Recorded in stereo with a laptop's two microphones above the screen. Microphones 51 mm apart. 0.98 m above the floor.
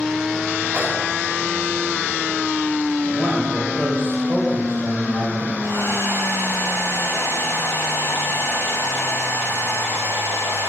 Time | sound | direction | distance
0.7 | a microwave | 20° right (ahead or behind) | 6 m
3.0 | a man speaking | 25° left (ahead or behind) | 4 m
5.6 | a hair dryer | 60° left (ahead or behind) | 4.5 m